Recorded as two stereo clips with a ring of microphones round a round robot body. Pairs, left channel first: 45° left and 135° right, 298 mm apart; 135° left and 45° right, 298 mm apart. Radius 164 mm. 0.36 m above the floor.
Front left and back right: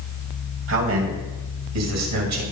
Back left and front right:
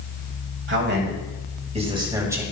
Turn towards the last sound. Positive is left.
turn(degrees=-130)